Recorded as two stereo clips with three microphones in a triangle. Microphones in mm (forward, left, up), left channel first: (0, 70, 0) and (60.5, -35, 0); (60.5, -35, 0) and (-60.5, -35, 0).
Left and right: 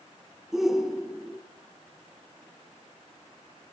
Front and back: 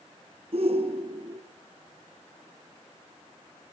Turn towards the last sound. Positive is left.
turn(degrees=-145)